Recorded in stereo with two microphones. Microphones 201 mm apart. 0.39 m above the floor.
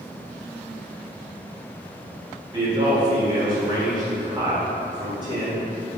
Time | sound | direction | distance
2.5 | a man speaking | 20° right (ahead or behind) | 1.0 m